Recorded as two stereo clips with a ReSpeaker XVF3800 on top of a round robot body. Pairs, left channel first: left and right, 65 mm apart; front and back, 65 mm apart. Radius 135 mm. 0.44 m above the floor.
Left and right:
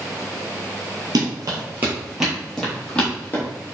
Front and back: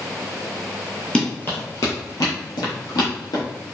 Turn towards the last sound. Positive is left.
turn(degrees=20)